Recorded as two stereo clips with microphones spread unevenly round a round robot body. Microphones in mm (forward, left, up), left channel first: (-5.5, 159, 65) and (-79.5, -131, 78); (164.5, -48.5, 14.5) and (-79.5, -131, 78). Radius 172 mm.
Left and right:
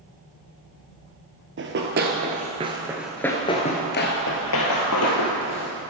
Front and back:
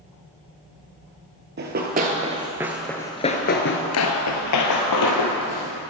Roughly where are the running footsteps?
Behind right.